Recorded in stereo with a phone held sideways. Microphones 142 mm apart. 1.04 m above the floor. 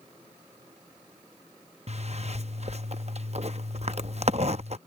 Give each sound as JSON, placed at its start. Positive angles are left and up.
{"t": 1.9, "sound": "a zipper", "side_deg": -50}